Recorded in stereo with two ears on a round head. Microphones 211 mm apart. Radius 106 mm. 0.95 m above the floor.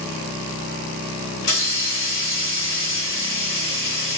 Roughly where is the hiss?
Left.